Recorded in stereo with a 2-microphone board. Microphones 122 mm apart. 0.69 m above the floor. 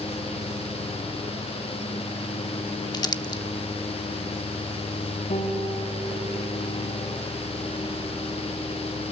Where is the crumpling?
35° left (ahead or behind), 0.8 m.